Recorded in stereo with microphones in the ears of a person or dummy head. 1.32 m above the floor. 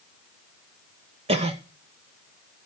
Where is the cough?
30° right (ahead or behind), 0.9 m.